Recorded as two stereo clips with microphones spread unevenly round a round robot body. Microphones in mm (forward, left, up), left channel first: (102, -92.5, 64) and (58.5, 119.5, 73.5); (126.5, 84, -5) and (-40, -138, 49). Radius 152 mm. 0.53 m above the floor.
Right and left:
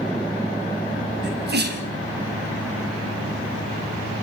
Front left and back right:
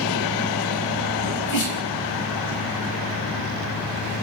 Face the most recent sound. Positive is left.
turn(degrees=60)